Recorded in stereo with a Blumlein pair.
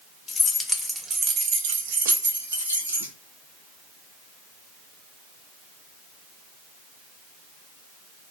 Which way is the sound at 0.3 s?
20° left.